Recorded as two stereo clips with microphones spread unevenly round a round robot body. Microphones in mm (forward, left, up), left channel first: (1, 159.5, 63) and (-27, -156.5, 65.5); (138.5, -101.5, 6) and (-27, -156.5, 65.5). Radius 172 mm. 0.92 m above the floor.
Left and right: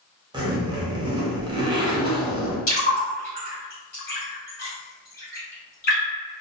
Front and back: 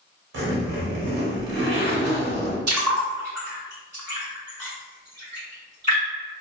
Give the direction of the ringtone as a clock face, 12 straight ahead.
No ringtone in this recording.